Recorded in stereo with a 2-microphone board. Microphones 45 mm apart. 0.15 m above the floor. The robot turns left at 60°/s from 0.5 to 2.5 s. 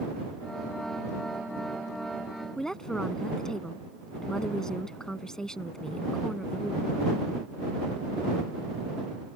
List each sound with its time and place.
2.6 s a woman speaking: 15° left (ahead or behind)